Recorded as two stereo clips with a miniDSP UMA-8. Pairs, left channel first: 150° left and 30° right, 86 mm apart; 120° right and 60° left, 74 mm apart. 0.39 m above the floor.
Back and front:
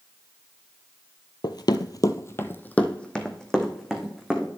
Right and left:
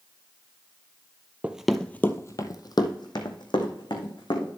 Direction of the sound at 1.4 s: 130° left.